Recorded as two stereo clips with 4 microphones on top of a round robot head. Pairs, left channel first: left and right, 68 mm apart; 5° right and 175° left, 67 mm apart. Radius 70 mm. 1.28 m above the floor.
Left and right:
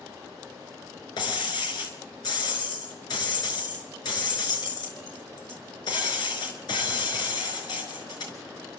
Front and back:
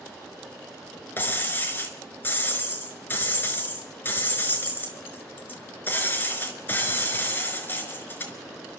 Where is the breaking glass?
55° left, 4.5 m.